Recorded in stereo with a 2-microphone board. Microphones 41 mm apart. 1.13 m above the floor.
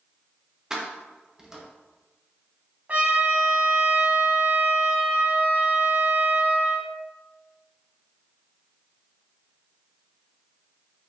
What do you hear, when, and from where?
0.7 s keys jangling: 15° right (ahead or behind), 0.7 m
2.9 s a trumpet: 40° right (ahead or behind), 0.8 m